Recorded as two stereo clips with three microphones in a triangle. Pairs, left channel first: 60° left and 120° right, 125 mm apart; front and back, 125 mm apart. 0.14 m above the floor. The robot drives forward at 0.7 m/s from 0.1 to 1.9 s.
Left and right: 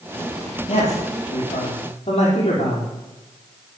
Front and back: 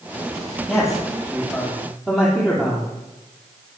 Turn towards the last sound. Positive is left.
turn(degrees=95)